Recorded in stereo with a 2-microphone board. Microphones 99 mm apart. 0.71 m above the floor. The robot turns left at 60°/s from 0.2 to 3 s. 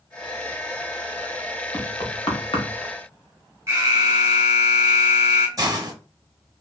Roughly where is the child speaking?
No child speaking in this recording.